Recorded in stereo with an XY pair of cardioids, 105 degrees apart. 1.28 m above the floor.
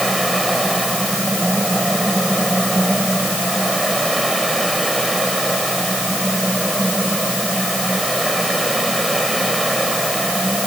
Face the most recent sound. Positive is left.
turn(degrees=-10)